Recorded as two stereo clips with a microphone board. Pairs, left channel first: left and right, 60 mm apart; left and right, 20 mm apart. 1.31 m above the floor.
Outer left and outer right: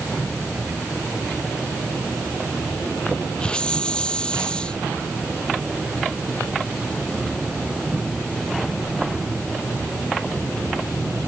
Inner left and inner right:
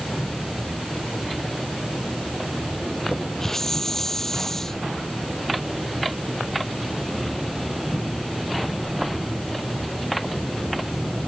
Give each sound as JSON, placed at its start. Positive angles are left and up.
{"t": 3.4, "sound": "a hiss", "side_deg": 15}